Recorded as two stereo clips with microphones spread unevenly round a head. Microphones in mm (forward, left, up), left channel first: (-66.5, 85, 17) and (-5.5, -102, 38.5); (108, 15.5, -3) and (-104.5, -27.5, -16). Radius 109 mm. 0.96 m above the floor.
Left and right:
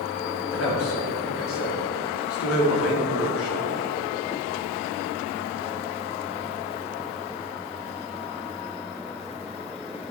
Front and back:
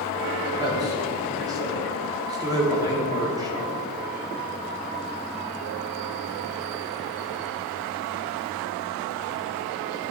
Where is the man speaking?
120° left, 2.0 m.